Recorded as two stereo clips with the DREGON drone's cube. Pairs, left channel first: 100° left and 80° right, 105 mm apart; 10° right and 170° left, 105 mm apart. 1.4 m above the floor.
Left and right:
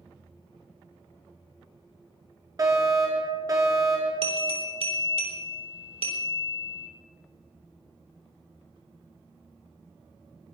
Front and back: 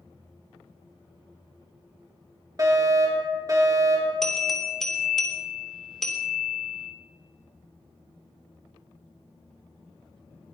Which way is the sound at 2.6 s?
135° right.